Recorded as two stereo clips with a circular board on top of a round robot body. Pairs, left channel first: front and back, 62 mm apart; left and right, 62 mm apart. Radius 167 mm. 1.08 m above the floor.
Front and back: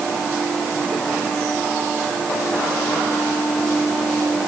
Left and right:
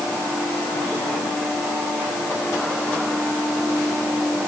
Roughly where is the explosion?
No explosion in this recording.